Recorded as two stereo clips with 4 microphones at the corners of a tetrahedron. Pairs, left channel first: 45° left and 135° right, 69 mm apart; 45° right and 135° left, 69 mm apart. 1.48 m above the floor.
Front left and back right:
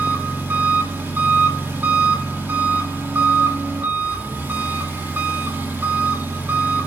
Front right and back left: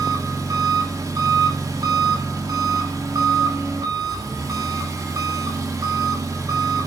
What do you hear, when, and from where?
0.0 s an engine running: 165° left, 2.5 m